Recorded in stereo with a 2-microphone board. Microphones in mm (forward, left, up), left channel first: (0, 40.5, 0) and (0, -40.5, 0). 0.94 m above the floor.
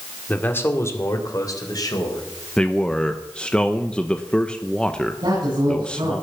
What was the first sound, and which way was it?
A man speaking, 20° left (ahead or behind).